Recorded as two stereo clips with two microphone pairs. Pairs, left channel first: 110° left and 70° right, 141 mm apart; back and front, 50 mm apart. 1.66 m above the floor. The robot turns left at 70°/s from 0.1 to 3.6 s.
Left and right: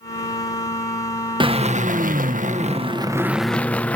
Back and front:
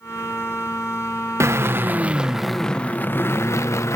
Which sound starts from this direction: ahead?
A drill, at 1.4 s.